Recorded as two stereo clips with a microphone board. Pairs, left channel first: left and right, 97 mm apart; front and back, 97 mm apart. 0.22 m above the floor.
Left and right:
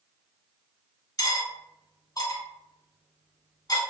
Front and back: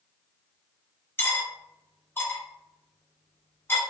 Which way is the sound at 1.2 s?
60° left.